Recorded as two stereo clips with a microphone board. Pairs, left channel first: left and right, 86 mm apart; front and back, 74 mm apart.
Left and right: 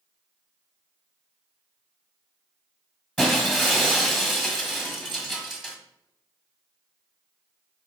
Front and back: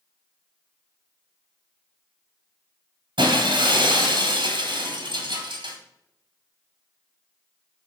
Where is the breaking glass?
Straight behind, 1.6 m.